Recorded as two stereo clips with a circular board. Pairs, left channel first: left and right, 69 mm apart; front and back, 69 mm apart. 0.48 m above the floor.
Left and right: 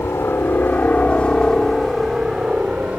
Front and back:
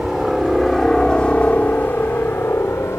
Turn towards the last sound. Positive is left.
turn(degrees=-25)